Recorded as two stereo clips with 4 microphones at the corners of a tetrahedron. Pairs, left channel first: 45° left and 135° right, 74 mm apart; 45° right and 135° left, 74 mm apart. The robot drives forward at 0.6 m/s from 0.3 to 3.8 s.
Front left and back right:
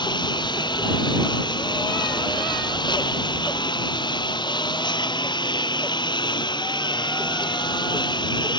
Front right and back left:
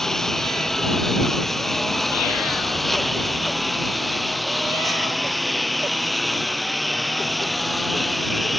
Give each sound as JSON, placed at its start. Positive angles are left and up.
{"t": 0.0, "sound": "a lawn mower", "azimuth_deg": 40}